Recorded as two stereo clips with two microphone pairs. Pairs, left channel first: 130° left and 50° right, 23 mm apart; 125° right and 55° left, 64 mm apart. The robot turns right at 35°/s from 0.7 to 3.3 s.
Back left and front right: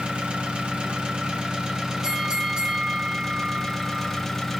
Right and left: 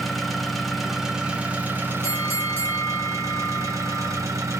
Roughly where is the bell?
Right.